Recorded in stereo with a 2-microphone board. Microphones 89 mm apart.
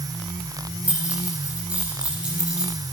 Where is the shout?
I don't hear a shout.